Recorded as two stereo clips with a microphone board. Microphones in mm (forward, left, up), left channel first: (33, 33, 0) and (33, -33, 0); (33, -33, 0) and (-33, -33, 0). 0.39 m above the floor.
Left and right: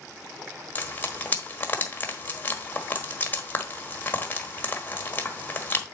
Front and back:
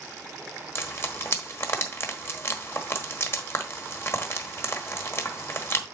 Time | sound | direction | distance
0.8 | frying | 35° left | 1.3 m